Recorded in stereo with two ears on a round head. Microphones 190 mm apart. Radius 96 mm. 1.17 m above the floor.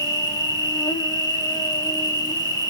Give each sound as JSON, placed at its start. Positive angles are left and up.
{"t": 0.0, "sound": "an insect", "side_deg": 20, "distance_m": 1.0}